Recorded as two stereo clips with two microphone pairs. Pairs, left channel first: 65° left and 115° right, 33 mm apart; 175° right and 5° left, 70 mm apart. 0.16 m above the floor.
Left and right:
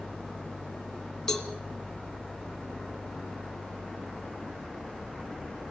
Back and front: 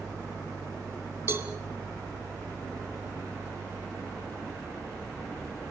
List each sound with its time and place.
1.3 s a cowbell: 5° right, 1.4 m